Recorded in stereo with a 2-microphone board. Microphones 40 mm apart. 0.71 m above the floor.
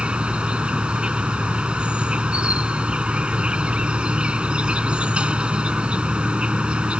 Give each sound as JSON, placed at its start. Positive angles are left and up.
{"t": 0.0, "sound": "an insect", "side_deg": -25}